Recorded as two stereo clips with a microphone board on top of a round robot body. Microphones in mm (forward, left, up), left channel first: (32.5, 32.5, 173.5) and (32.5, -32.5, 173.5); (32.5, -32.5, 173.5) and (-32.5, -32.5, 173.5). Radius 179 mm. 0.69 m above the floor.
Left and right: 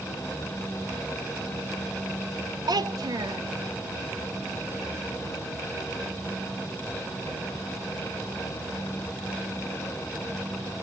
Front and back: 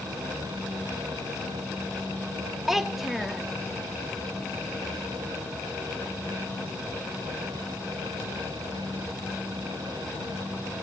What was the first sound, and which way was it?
A child speaking, 95° right.